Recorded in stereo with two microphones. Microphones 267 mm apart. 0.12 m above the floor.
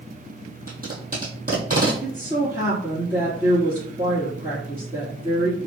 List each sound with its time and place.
0.7 s tape being pulled: 35° right (ahead or behind), 1.5 m
2.0 s a woman speaking: 15° right (ahead or behind), 1.7 m